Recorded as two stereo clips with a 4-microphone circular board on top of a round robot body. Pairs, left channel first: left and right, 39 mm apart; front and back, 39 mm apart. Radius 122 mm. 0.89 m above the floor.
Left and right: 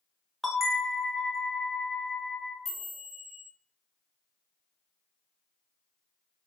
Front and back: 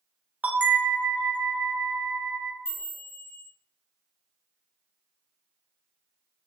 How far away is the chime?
About 1.3 m.